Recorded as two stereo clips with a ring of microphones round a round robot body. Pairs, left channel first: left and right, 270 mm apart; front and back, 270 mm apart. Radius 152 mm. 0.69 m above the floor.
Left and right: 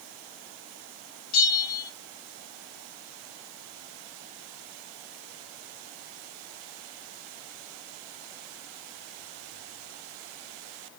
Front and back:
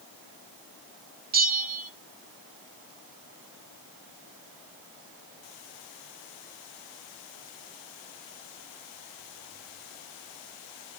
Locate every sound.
1.3 s a bell: 125° left, 1.3 m